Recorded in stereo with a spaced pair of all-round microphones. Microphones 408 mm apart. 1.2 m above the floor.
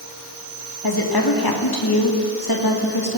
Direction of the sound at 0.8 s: 60° left (ahead or behind).